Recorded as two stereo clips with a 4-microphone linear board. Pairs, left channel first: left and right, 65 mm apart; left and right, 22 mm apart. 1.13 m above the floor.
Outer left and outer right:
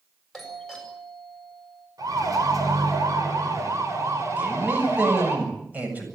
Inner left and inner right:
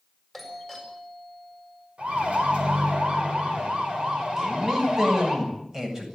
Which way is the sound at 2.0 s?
65° right (ahead or behind).